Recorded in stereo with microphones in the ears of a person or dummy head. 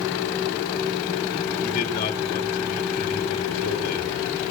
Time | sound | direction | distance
1.6 | a man speaking | 45° left (ahead or behind) | 3.5 m